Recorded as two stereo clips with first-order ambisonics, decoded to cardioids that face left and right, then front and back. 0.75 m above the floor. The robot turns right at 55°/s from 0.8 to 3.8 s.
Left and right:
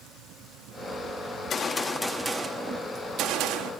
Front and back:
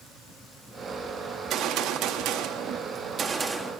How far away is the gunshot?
About 1.4 m.